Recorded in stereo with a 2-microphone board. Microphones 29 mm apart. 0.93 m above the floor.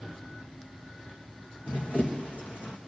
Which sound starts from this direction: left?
Running footsteps, at 1.7 s.